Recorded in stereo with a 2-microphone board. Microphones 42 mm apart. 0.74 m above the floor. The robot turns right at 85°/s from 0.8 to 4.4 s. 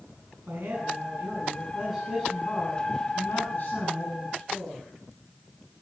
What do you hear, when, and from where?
0.5 s a man speaking: 100° right, 8 m; by 4.9 s 155° right, 8 m